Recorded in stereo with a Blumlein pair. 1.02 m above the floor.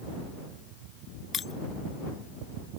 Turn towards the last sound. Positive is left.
turn(degrees=20)